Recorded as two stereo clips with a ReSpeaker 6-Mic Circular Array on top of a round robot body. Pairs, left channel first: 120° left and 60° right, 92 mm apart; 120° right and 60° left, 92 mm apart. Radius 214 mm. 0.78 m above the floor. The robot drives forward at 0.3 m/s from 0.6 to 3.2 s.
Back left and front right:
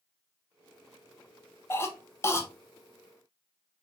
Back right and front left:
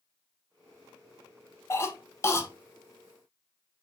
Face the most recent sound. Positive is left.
turn(degrees=180)